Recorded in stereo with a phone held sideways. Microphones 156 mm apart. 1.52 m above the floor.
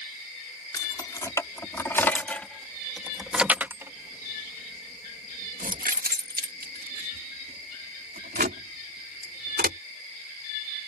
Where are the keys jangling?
25° left (ahead or behind); by 9.8 s 75° right (ahead or behind).